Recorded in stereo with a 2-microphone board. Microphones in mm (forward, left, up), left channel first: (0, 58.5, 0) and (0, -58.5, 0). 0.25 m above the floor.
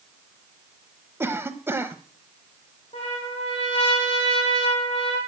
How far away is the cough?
About 0.9 m.